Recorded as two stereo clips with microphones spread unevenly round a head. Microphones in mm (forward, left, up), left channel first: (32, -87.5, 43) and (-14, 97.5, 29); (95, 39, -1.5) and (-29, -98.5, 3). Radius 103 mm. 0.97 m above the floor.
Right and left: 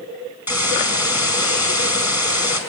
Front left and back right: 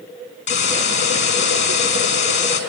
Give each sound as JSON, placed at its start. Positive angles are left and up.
{"t": 0.5, "sound": "a hiss", "azimuth_deg": 25, "distance_m": 5.0}